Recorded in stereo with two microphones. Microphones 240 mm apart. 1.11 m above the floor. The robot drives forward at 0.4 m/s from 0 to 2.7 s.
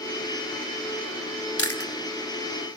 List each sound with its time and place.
1.6 s chewing: 75° left (ahead or behind), 2.5 m; by 1.9 s 70° left (ahead or behind), 2.5 m